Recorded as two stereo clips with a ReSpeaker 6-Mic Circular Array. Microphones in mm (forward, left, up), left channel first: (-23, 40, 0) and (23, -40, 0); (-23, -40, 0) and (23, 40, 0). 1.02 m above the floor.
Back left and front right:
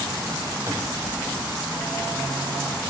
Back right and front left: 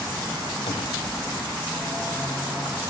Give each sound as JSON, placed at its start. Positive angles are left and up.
{"t": 0.7, "sound": "a cupboard door", "azimuth_deg": -120, "distance_m": 0.5}